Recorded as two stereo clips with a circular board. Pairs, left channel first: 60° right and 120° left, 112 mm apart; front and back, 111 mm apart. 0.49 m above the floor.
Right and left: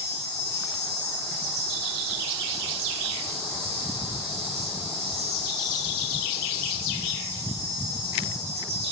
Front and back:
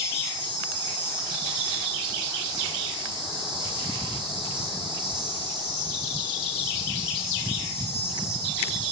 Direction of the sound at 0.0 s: 135° left.